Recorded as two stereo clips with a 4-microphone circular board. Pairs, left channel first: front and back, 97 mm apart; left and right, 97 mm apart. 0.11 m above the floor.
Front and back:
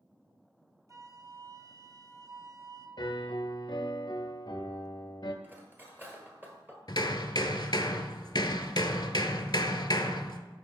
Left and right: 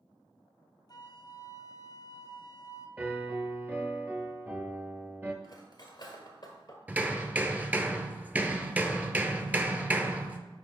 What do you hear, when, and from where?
0.9 s a flute: 130° left, 0.7 m
3.0 s a piano: 25° right, 0.7 m
5.4 s cutlery clinking: 120° left, 1.2 m
6.9 s hammering: 20° right, 0.6 m